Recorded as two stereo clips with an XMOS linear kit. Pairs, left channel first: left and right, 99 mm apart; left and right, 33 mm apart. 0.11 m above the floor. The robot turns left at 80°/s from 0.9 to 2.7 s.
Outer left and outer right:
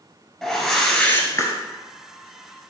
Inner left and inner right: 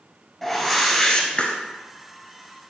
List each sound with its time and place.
0.4 s a whoosh: straight behind, 0.9 m; by 1.5 s 125° left, 0.9 m